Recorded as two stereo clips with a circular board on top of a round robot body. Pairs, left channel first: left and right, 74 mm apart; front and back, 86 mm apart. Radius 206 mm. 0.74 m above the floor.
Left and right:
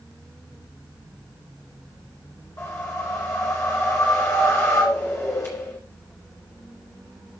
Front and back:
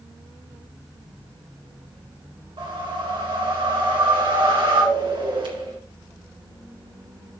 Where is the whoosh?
150° left, 2.5 m.